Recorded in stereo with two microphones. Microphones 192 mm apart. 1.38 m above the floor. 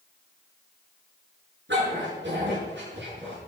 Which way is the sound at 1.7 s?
65° right (ahead or behind).